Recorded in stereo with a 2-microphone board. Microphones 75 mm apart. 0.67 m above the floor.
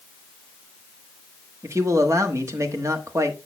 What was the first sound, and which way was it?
A man speaking, 45° right (ahead or behind).